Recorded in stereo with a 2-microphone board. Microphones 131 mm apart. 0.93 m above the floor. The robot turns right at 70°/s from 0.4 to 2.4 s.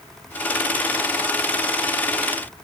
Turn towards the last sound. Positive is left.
No sound to turn to.